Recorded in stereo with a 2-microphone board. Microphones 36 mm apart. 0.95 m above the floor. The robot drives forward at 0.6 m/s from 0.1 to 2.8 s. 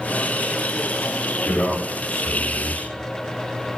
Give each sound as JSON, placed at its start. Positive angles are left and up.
{"t": 1.4, "sound": "a man speaking", "side_deg": 65, "distance_m": 4.0}